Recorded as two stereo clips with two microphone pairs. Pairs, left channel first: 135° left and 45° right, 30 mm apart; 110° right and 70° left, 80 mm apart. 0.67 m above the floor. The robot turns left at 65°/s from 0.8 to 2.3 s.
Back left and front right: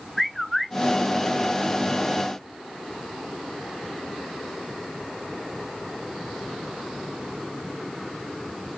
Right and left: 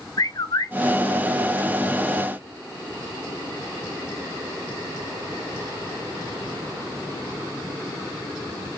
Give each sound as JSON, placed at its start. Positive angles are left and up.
{"t": 0.2, "sound": "a bird", "azimuth_deg": -135, "distance_m": 0.6}